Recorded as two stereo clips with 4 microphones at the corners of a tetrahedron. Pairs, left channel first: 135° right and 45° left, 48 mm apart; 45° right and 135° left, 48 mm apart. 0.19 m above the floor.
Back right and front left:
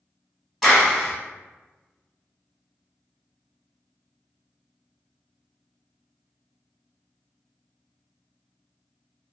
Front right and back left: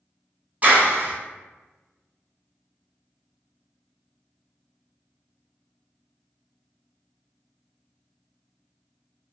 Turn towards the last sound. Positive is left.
turn(degrees=130)